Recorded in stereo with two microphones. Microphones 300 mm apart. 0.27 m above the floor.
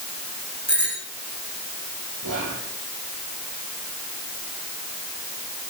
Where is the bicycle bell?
65° right (ahead or behind), 9 m.